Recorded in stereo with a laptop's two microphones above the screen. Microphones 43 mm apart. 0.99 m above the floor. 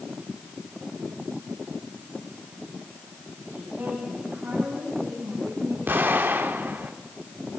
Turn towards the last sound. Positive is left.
turn(degrees=-50)  # may be behind; listen again after turning